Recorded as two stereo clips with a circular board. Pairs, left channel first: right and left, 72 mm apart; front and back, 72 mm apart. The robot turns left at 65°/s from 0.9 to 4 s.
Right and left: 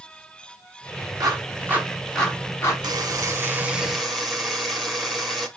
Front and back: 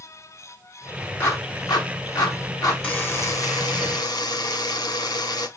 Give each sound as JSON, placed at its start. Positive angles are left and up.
{"t": 1.2, "sound": "a clap", "azimuth_deg": 60, "distance_m": 3.5}
{"t": 2.8, "sound": "a buzzer", "azimuth_deg": 75, "distance_m": 1.7}